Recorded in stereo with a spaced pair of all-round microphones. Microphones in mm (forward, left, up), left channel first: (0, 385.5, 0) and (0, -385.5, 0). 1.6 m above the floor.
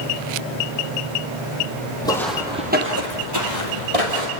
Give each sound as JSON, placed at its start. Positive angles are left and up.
{"t": 2.0, "sound": "footsteps", "side_deg": 5, "distance_m": 2.5}